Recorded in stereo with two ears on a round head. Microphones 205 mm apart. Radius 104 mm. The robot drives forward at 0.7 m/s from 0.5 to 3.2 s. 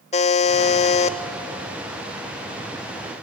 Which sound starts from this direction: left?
A buzzer, at 0.1 s.